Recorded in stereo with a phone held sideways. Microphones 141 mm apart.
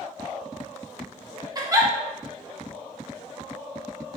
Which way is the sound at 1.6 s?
25° right (ahead or behind).